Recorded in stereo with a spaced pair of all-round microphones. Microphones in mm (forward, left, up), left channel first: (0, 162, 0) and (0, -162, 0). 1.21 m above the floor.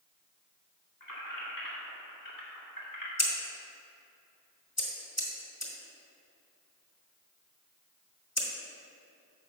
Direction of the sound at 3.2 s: 50° left (ahead or behind).